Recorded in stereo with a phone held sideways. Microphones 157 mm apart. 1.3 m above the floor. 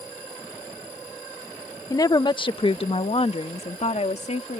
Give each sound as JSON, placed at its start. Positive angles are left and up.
{"t": 1.9, "sound": "a woman speaking", "side_deg": 20}